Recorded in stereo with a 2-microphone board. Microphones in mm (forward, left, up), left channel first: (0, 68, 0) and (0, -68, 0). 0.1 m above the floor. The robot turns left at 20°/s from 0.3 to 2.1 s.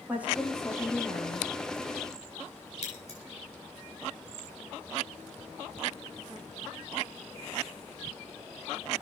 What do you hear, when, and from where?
0.1 s a woman speaking: 10° right (ahead or behind), 6 m; by 1.5 s 15° left (ahead or behind), 6 m
2.8 s scissors: 50° left (ahead or behind), 8.5 m